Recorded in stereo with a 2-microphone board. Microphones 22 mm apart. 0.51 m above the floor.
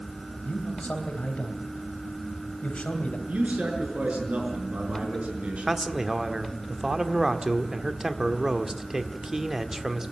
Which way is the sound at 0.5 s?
70° left (ahead or behind).